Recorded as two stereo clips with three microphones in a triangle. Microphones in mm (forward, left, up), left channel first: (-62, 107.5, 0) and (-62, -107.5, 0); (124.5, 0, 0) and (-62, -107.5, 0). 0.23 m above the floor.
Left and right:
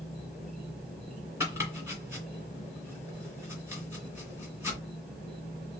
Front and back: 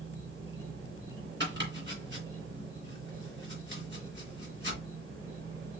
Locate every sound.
0.0 s an insect: 175° right, 4.5 m
1.4 s chopping: 170° right, 2.5 m